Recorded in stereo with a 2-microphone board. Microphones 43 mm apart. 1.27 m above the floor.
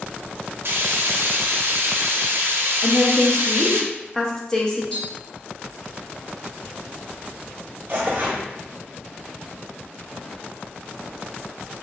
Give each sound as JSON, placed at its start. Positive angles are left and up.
{"t": 0.7, "sound": "frying", "side_deg": -65, "distance_m": 0.7}
{"t": 2.8, "sound": "a woman speaking", "side_deg": 15, "distance_m": 1.0}
{"t": 4.9, "sound": "tapping", "side_deg": 20, "distance_m": 1.8}
{"t": 7.9, "sound": "tearing paper", "side_deg": -45, "distance_m": 1.8}